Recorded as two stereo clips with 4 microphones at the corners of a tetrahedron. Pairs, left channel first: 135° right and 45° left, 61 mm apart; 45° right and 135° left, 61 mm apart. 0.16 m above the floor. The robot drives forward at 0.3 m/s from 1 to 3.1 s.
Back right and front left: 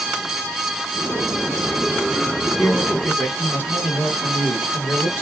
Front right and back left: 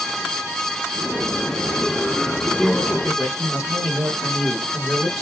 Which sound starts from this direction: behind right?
A man speaking, at 2.6 s.